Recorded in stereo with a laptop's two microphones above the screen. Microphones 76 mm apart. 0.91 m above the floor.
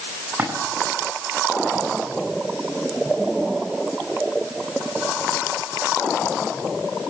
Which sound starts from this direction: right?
A splash, at 0.4 s.